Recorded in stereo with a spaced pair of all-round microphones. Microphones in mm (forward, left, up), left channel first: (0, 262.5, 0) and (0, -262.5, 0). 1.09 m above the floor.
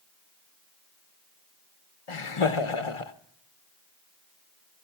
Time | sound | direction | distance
2.1 | laughter | 70° left (ahead or behind) | 1.0 m